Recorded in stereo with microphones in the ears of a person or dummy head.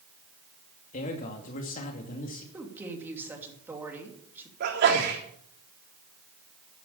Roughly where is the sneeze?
Right.